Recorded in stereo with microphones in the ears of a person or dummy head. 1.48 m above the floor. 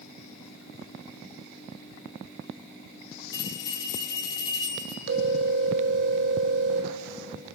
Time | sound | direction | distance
3.3 | a bell | 25° left (ahead or behind) | 2.5 m
5.1 | a phone ringing | 70° right (ahead or behind) | 3 m